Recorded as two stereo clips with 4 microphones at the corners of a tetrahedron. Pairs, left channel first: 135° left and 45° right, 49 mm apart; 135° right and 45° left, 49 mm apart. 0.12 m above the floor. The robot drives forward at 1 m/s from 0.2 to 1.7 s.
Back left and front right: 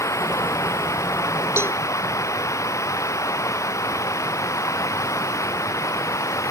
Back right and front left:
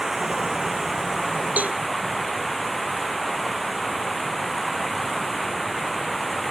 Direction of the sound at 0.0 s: 130° left.